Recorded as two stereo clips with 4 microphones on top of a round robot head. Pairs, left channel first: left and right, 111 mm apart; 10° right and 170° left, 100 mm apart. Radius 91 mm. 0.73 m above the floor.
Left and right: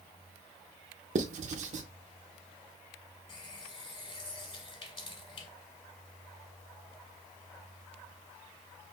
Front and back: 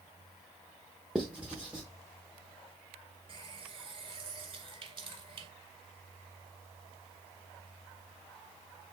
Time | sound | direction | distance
1.1 | writing | 105° right | 0.6 m
3.3 | a running tap | 135° left | 1.8 m